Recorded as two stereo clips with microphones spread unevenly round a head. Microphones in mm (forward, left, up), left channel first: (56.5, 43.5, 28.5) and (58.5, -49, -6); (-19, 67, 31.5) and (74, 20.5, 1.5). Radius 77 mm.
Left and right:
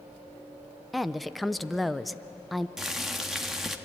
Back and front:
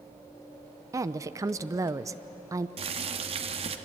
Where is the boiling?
Straight ahead, 1.5 m.